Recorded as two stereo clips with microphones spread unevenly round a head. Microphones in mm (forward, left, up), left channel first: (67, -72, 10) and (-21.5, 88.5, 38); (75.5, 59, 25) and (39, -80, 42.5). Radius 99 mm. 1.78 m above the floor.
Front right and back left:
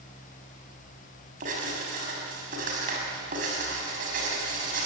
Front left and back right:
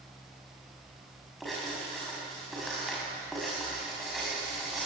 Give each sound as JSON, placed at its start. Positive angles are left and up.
{"t": 1.4, "sound": "writing", "azimuth_deg": 165, "distance_m": 5.5}